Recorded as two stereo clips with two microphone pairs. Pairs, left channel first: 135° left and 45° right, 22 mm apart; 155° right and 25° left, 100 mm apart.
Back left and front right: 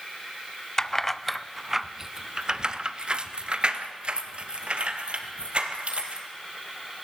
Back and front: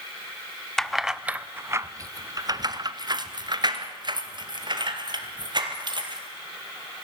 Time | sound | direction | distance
0.8 | keys jangling | 125° left | 0.8 m